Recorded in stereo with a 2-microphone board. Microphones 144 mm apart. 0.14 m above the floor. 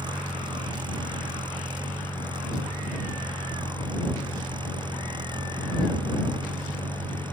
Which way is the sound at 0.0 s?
30° right (ahead or behind).